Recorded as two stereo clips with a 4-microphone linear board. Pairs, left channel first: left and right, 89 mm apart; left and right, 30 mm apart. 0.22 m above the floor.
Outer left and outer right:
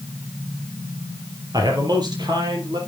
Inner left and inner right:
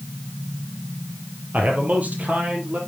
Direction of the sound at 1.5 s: 50° right (ahead or behind).